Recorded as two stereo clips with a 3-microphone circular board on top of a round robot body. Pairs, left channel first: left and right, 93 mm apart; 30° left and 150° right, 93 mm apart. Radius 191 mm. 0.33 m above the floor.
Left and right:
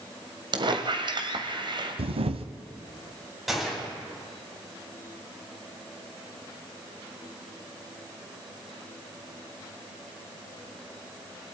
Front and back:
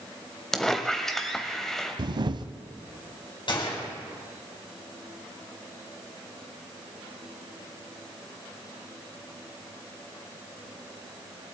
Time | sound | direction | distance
0.5 | a squeak | 55° right | 1.9 m
2.0 | a camera shutter | 110° right | 0.9 m
3.5 | a gunshot | straight ahead | 4.5 m